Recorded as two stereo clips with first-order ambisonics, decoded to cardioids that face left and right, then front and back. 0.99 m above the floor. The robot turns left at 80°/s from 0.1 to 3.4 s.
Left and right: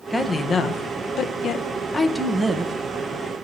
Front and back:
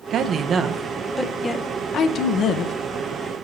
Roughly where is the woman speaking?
Behind.